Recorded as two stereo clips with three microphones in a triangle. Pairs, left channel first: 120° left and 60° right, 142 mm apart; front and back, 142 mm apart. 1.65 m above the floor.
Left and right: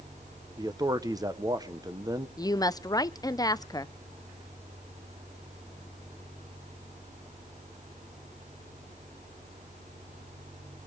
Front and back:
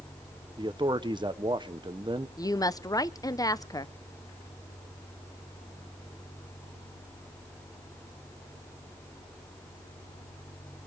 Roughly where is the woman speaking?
Ahead left.